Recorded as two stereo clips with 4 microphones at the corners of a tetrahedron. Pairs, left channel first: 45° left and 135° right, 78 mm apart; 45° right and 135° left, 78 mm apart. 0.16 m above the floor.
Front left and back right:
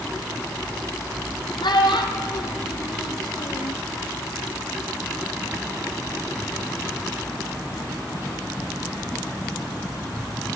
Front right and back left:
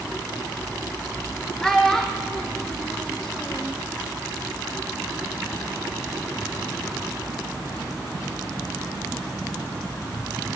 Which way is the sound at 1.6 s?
35° left.